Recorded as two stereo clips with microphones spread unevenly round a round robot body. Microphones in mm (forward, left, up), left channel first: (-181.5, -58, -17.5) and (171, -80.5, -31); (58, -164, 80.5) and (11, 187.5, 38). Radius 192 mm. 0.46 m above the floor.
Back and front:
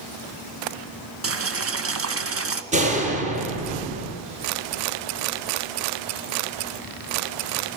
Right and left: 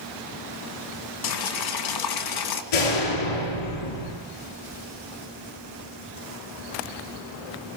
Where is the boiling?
55° right, 2.5 m.